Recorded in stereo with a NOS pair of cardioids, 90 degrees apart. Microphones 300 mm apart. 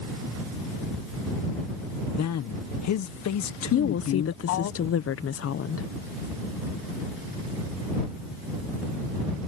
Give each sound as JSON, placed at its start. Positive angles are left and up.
{"t": 2.2, "sound": "a man speaking", "azimuth_deg": 60}
{"t": 3.7, "sound": "a woman speaking", "azimuth_deg": 45}